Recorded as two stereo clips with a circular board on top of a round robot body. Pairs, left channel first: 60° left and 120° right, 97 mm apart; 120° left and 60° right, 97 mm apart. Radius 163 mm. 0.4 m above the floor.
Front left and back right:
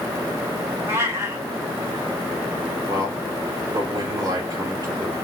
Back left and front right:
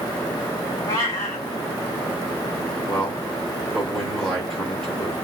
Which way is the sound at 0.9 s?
175° left.